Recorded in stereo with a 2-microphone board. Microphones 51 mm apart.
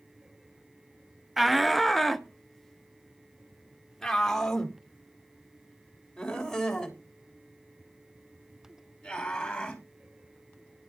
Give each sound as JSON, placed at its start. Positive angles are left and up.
{"t": 1.4, "sound": "a shout", "side_deg": -5, "distance_m": 0.7}